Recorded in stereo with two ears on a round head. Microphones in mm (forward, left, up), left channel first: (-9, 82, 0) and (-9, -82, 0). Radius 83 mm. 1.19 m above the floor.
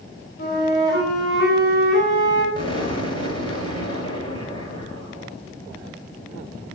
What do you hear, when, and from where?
0.4 s a flute: 55° left (ahead or behind), 6.5 m
2.5 s an explosion: 25° left (ahead or behind), 9 m